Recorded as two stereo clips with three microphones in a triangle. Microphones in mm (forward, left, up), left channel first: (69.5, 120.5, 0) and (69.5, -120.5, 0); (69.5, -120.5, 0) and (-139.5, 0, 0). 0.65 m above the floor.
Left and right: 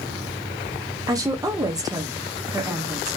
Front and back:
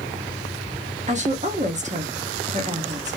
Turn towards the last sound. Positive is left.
turn(degrees=-160)